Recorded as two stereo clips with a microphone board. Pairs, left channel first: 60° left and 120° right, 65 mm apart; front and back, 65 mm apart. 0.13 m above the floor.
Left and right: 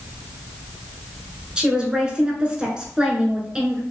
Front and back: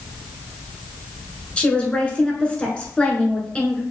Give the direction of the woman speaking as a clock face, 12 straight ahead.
2 o'clock.